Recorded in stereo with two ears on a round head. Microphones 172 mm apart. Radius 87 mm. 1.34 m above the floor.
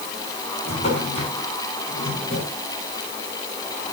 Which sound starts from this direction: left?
A drawer, at 0.7 s.